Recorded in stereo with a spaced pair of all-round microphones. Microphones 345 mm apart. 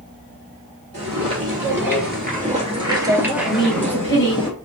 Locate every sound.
0.9 s footsteps: 45° right (ahead or behind), 2 m; by 4.5 s 15° left (ahead or behind), 2 m
3.5 s a woman speaking: 35° left (ahead or behind), 1.7 m